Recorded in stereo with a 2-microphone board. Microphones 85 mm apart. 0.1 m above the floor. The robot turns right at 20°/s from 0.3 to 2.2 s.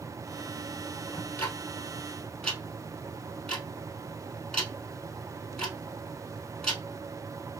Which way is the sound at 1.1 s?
30° left (ahead or behind).